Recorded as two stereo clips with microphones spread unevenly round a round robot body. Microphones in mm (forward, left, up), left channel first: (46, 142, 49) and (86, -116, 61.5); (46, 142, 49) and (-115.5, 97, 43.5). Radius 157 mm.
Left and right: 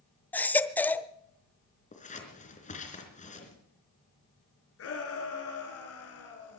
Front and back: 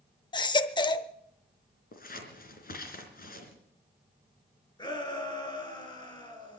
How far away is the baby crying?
About 0.8 m.